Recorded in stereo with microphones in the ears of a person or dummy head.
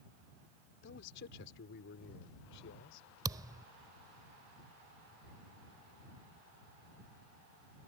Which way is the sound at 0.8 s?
75° left (ahead or behind).